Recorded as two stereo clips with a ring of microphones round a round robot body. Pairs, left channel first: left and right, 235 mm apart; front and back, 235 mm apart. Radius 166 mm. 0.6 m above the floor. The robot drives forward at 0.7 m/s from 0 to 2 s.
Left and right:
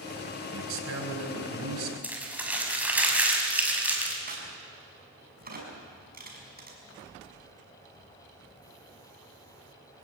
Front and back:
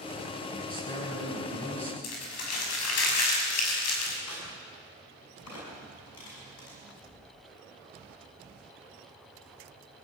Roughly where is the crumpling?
Ahead.